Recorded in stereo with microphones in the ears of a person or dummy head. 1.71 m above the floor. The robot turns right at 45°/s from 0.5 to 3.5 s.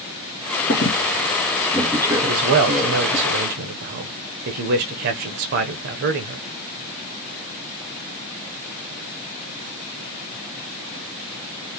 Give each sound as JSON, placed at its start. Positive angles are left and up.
{"t": 0.7, "sound": "a squeak", "side_deg": 35, "distance_m": 2.5}
{"t": 2.2, "sound": "a man speaking", "azimuth_deg": -135, "distance_m": 0.8}